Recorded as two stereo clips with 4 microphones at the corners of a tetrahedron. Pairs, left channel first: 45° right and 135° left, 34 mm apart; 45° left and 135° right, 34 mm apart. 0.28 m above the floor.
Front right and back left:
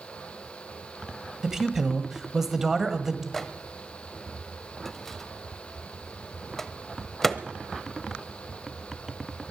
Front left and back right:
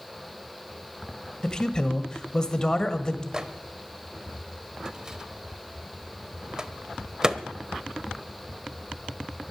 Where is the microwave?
110° right, 0.9 m.